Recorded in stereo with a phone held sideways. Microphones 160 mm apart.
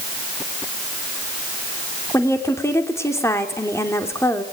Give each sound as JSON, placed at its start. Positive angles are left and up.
{"t": 2.1, "sound": "a woman speaking", "side_deg": 15, "distance_m": 2.5}